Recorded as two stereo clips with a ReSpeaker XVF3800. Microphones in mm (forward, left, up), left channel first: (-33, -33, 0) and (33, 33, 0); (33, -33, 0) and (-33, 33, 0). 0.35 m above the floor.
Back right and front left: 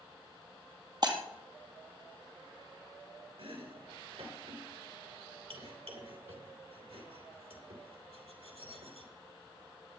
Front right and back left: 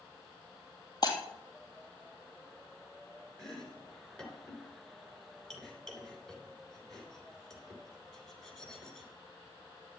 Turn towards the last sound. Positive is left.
turn(degrees=40)